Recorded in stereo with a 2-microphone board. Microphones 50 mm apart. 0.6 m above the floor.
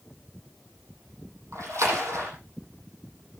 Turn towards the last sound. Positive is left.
turn(degrees=-85)